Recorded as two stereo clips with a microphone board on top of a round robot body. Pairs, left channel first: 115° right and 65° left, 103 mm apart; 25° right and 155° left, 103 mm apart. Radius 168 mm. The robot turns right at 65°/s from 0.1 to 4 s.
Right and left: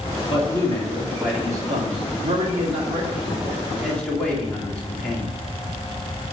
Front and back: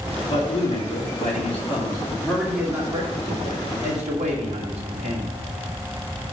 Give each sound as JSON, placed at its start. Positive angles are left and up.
{"t": 0.2, "sound": "a man speaking", "azimuth_deg": -75, "distance_m": 3.0}